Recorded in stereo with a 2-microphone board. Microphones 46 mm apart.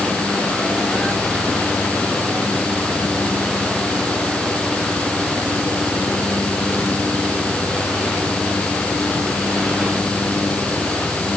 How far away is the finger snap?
I don't hear a finger snap.